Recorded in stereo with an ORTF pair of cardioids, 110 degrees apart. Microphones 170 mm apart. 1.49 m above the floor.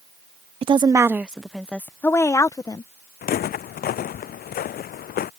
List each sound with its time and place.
0.6 s a woman speaking: 30° right; by 2.9 s 20° left
3.2 s footsteps: 60° left